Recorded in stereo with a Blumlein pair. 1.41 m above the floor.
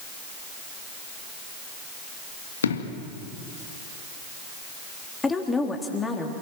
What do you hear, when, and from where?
2.6 s an explosion: 70° left, 1.9 m
5.2 s a woman speaking: 10° left, 3.5 m